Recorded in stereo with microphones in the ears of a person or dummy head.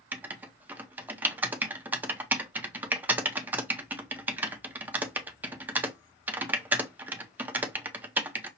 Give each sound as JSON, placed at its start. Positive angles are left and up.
{"t": 0.1, "sound": "writing", "side_deg": -10, "distance_m": 0.6}